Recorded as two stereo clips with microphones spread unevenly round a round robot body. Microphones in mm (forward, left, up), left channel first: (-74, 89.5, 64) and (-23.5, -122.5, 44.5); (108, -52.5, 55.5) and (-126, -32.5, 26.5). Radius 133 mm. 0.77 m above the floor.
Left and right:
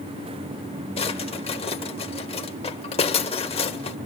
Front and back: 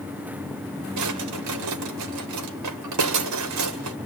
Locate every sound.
1.0 s a drawer: 170° left, 1.6 m